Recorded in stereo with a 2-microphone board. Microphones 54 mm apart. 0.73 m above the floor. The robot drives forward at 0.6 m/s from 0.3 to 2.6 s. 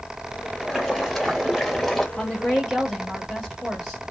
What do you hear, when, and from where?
0.6 s boiling: 5° left (ahead or behind), 1.5 m
2.2 s a woman speaking: 15° left (ahead or behind), 1.3 m; by 4.0 s 10° left (ahead or behind), 1.5 m